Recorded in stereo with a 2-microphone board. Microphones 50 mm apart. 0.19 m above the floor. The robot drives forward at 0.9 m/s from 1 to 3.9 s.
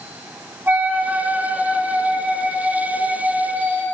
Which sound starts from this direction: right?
A flute, at 0.7 s.